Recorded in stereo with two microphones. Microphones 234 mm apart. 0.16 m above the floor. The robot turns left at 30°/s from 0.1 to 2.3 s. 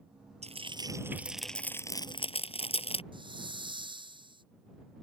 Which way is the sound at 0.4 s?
30° right (ahead or behind).